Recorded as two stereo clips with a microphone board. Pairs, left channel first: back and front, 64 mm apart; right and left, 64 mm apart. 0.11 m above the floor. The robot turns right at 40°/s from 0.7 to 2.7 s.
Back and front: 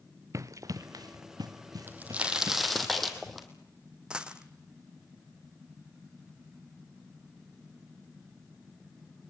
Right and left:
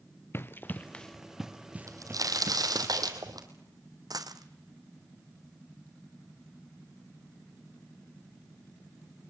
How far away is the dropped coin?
About 1.2 m.